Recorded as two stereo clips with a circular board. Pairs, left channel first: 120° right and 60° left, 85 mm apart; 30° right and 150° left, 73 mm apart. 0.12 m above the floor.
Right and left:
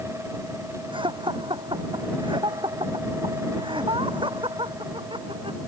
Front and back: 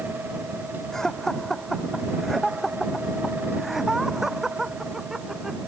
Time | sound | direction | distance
0.9 | laughter | 55° left | ?